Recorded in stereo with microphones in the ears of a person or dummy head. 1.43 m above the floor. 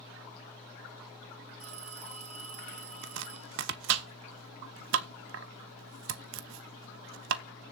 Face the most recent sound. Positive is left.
turn(degrees=-65)  # may be behind; listen again after turning